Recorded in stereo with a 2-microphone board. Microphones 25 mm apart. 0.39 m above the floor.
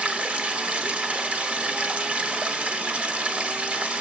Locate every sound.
0.0 s running water: 60° right (ahead or behind), 0.7 m